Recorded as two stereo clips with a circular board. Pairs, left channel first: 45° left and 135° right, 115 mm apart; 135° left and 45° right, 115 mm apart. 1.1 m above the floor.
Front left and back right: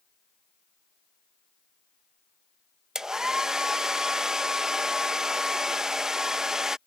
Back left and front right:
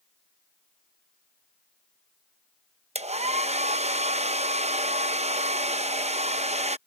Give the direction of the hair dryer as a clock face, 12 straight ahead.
2 o'clock.